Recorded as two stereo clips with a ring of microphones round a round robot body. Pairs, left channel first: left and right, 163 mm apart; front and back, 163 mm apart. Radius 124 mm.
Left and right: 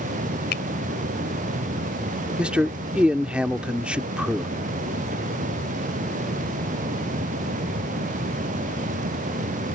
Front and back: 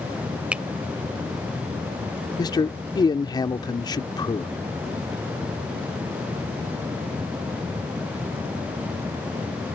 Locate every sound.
0.5 s a finger snap: 100° left
2.4 s a man speaking: 15° right